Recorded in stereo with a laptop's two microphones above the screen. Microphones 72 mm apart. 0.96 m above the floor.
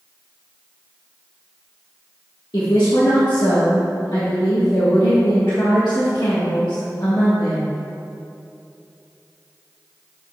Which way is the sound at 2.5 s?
75° left (ahead or behind).